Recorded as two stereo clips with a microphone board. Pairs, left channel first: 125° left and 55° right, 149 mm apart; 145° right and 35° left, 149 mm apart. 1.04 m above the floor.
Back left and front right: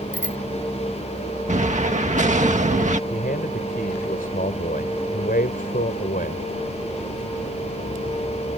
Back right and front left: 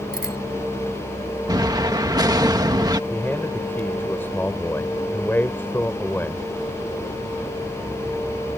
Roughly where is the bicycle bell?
Ahead left.